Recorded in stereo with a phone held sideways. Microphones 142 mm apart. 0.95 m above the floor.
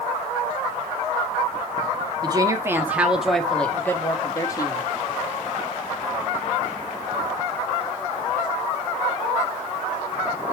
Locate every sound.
2.2 s a woman speaking: 30° right (ahead or behind), 1.4 m; by 4.8 s 30° left (ahead or behind), 2 m